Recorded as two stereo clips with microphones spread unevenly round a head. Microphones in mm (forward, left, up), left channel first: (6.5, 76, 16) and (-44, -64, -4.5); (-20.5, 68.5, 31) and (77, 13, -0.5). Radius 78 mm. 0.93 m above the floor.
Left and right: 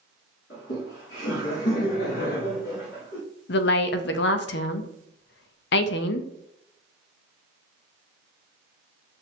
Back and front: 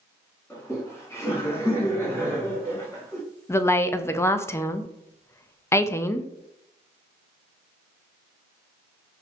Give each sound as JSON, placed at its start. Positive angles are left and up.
{"t": 0.5, "sound": "laughter", "azimuth_deg": 70, "distance_m": 2.0}
{"t": 3.5, "sound": "a woman speaking", "azimuth_deg": 75, "distance_m": 0.6}